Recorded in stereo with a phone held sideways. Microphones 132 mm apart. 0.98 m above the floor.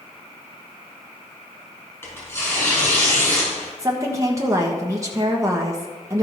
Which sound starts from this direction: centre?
Tearing paper, at 2.0 s.